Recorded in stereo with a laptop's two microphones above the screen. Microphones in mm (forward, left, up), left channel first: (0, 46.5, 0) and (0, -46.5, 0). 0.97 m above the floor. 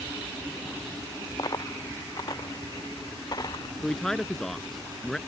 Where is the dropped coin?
40° left (ahead or behind).